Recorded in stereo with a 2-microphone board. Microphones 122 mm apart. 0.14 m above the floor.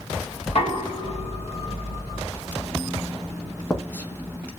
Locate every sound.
0.5 s knocking: 55° left (ahead or behind), 2.5 m
2.3 s writing: 15° left (ahead or behind), 1.0 m